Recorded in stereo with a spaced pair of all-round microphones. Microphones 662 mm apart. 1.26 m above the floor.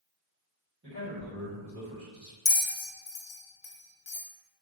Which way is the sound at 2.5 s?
80° left.